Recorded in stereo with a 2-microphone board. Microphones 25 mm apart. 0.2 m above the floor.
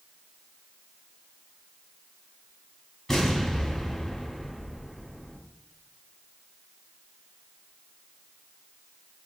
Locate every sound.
3.1 s an explosion: 15° left (ahead or behind), 1.0 m